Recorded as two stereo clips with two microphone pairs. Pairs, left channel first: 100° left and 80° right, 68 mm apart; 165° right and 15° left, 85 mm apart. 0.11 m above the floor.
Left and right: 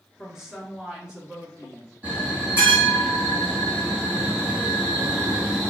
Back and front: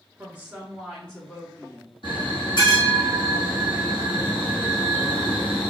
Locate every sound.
0.2 s a woman speaking: straight ahead, 1.2 m; by 1.9 s 140° right, 1.5 m
2.0 s a bell: 150° right, 1.8 m